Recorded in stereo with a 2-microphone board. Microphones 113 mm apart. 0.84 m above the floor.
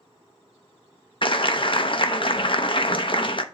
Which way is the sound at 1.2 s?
50° left (ahead or behind).